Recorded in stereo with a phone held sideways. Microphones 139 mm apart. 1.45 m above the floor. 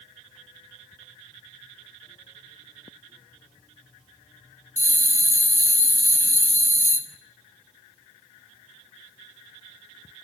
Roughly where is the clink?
I don't hear a clink.